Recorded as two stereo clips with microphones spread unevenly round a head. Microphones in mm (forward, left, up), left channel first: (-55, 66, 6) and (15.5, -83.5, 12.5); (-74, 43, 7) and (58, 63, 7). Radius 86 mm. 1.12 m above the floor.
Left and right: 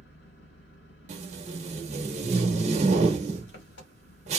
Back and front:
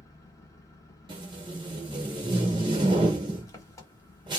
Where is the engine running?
125° left, 1.3 m.